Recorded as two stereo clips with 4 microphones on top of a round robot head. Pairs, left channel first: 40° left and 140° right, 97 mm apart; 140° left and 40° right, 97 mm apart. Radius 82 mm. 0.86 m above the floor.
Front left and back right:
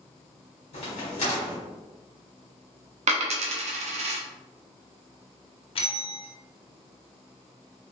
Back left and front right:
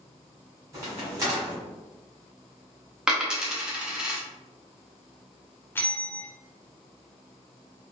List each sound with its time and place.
0.7 s a crack: 15° left, 1.4 m
3.1 s a dropped coin: 125° right, 0.5 m
5.8 s a bell: 65° left, 0.6 m